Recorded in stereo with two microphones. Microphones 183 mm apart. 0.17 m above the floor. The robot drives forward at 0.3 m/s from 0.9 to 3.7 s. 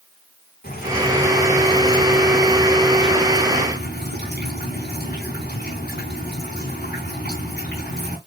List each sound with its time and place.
0.6 s dripping: 55° left (ahead or behind), 5 m; by 8.2 s 60° left (ahead or behind), 5 m